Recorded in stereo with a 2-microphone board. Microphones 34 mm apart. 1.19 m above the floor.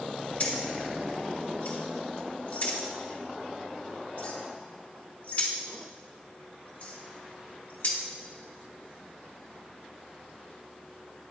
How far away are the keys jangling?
About 0.8 m.